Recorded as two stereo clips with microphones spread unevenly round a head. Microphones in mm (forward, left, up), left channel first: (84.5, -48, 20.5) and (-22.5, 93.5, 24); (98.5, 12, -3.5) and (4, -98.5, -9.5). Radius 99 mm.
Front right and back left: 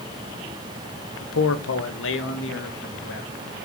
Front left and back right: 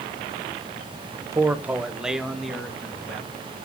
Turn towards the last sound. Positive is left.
turn(degrees=-35)